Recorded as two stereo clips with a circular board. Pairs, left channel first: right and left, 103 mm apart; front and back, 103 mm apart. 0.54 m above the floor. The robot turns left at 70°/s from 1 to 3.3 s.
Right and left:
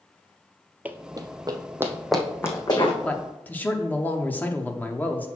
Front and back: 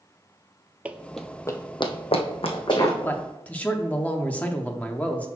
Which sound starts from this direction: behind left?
Running footsteps, at 0.8 s.